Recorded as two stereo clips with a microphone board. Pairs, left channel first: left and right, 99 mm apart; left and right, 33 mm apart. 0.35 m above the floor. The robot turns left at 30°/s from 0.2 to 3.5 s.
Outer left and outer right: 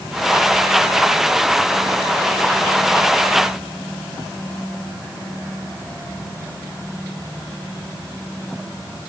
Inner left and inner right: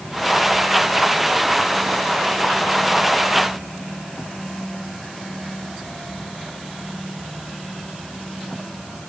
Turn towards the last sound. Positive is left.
No sound to turn to.